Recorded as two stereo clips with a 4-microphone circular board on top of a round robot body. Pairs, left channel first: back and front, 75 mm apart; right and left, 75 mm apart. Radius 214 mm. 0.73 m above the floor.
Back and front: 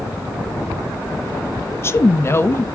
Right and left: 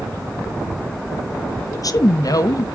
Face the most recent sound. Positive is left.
turn(degrees=-125)